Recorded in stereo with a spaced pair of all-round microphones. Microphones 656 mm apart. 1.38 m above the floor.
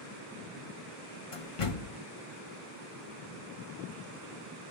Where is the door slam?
55° left (ahead or behind), 0.8 m.